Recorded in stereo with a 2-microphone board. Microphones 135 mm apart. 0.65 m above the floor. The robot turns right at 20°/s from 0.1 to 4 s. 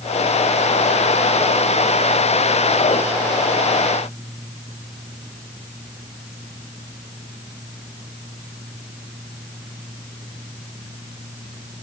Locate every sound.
Only background noise.